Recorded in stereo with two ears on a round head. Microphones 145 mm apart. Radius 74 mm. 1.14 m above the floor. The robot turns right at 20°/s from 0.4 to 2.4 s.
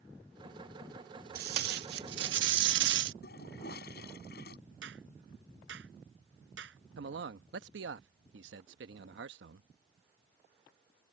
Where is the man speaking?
85° right.